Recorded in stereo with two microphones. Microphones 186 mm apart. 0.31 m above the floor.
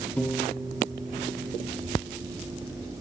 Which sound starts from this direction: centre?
A piano, at 0.2 s.